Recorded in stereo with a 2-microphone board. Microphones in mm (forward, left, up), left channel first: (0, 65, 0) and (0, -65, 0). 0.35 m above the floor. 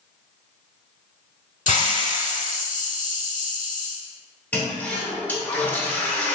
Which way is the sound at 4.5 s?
10° left (ahead or behind).